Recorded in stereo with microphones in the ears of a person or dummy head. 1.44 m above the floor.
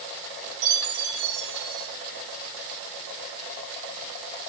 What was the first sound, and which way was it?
A chime, 75° right (ahead or behind).